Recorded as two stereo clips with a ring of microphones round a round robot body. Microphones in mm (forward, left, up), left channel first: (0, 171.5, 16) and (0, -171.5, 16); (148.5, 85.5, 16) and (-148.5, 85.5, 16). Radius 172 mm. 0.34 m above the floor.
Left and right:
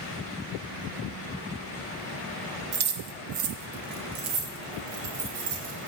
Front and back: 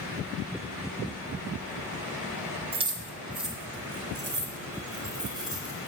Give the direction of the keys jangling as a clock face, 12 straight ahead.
4 o'clock.